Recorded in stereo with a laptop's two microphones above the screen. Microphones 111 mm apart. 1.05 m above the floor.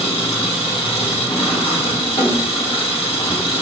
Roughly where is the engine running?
Left.